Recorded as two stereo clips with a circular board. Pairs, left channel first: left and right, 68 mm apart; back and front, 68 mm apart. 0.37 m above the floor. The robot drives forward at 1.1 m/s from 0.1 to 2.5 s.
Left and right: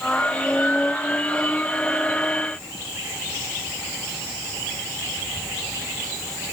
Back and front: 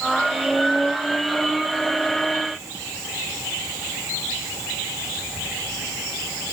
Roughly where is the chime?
No chime in this recording.